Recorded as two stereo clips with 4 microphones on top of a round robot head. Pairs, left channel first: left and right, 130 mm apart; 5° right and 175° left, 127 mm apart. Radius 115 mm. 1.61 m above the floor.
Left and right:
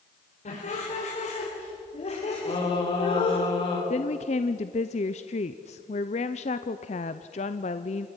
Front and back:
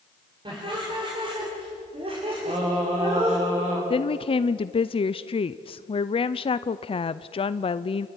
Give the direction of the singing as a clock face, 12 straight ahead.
7 o'clock.